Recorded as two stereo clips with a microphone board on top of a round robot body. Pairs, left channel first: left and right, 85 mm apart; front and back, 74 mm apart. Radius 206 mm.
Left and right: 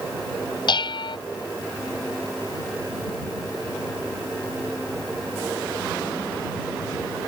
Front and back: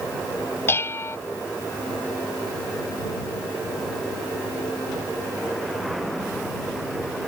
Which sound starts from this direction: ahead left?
Dishes clattering, at 0.7 s.